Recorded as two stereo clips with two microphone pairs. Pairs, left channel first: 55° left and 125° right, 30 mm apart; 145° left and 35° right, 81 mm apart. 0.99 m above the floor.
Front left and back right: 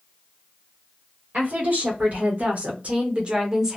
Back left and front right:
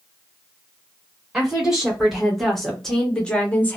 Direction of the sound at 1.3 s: 120° right.